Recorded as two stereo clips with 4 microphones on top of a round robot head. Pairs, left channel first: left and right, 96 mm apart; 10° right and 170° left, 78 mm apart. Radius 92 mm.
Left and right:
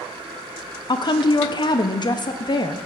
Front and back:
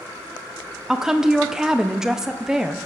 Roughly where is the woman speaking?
Left.